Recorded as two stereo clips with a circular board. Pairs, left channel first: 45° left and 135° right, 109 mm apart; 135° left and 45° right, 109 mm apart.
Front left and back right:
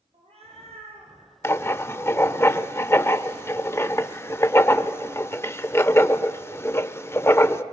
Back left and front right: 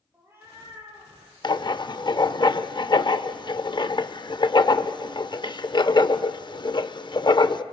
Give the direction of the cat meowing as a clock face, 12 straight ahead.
4 o'clock.